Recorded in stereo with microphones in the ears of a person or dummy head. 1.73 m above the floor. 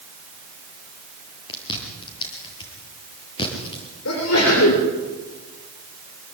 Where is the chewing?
25° left (ahead or behind), 7 m.